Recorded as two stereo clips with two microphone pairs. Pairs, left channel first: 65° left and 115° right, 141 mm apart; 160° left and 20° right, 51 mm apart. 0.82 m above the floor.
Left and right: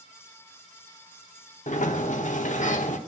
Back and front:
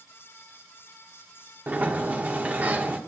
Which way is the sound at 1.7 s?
40° left.